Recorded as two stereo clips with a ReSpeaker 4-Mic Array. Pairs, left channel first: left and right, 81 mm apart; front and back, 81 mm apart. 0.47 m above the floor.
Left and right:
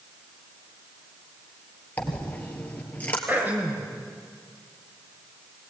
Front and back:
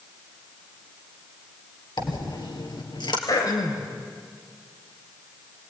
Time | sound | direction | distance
2.0 | a dropped coin | 20° left | 2.5 m
3.3 | throat clearing | 25° right | 3 m